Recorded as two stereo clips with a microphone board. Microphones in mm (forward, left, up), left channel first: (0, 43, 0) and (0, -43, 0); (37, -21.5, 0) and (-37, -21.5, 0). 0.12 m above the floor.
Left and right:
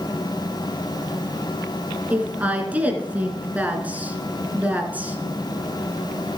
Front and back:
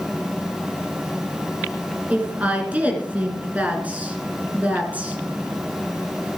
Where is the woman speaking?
140° right, 1.8 m.